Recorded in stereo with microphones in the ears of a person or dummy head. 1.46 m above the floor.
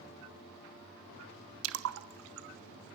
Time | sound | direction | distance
1.6 | a splash | 80° right | 1.2 m